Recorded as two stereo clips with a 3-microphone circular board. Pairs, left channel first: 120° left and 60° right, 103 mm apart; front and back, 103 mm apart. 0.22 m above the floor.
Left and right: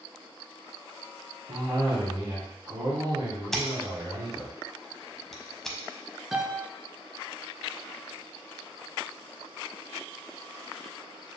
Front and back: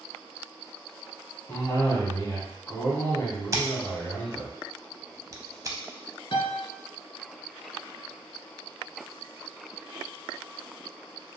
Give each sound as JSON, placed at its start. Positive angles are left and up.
{"t": 1.5, "sound": "a cough", "azimuth_deg": -50, "distance_m": 1.6}
{"t": 3.5, "sound": "scissors", "azimuth_deg": -160, "distance_m": 0.6}
{"t": 6.3, "sound": "a piano", "azimuth_deg": 25, "distance_m": 0.6}